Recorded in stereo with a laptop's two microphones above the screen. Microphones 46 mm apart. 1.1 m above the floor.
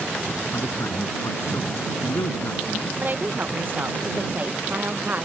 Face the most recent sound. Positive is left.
turn(degrees=-45)  # may be behind; listen again after turning